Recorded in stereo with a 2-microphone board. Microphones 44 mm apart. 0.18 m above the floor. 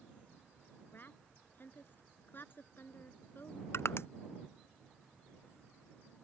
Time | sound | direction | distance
0.9 | a woman speaking | 55° left (ahead or behind) | ?
3.7 | crushing | 70° left (ahead or behind) | ?